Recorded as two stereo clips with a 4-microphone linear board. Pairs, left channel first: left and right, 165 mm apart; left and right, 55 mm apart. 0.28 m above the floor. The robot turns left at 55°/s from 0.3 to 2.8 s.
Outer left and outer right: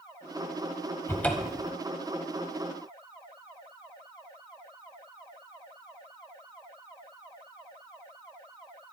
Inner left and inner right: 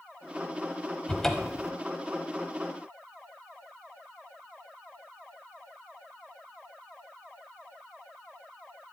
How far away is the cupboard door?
About 0.9 m.